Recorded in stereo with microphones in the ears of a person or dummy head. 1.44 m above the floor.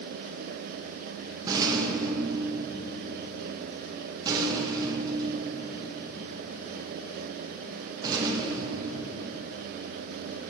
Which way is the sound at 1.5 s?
25° right (ahead or behind).